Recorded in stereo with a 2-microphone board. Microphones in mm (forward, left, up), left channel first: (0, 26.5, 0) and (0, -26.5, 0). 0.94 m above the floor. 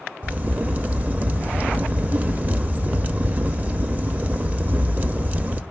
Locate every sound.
0.2 s a crack: 30° right (ahead or behind), 0.7 m